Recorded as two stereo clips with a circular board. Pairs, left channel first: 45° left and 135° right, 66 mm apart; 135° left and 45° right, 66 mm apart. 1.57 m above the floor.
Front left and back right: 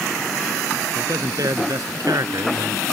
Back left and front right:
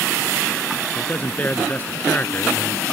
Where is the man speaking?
160° right.